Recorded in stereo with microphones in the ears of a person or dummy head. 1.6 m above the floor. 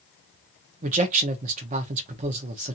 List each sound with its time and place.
0.8 s a man speaking: 40° right (ahead or behind), 0.7 m